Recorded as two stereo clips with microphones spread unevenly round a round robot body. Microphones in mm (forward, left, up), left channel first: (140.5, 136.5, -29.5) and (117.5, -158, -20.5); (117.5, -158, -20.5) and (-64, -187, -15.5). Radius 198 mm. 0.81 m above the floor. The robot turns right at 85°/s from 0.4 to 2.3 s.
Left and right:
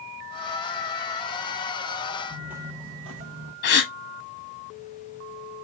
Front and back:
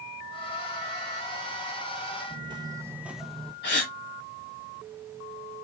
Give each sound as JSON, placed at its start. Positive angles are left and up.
{"t": 2.3, "sound": "footsteps", "azimuth_deg": 160, "distance_m": 0.9}
{"t": 3.6, "sound": "a gasp", "azimuth_deg": 40, "distance_m": 1.4}